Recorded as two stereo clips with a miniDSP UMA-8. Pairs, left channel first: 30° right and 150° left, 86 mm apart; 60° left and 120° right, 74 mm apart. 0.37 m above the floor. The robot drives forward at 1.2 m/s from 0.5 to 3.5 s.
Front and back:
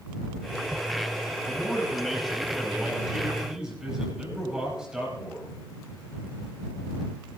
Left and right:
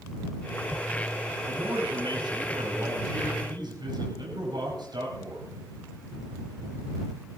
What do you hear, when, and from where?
1.5 s a man speaking: 115° right, 8.5 m; by 5.5 s 130° right, 10 m